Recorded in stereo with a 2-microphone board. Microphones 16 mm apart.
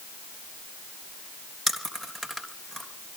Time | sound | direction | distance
1.7 | chewing | 20° left (ahead or behind) | 3.5 m